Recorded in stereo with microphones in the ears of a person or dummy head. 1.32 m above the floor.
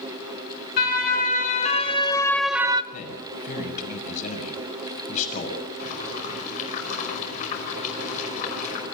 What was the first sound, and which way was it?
A siren, 55° left (ahead or behind).